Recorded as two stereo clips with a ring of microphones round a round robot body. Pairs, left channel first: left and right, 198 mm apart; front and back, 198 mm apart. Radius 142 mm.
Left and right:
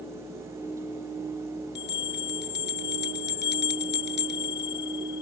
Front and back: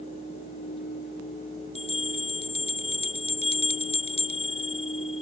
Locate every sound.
1.8 s a bell: 60° left